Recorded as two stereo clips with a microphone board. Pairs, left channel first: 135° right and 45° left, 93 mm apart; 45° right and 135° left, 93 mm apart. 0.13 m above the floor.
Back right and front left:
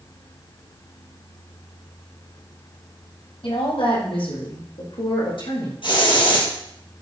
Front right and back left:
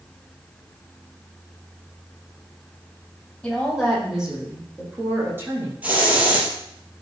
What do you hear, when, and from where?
3.4 s a woman speaking: 130° right, 5 m; by 5.7 s 160° right, 6.5 m
5.8 s a hiss: 155° right, 4 m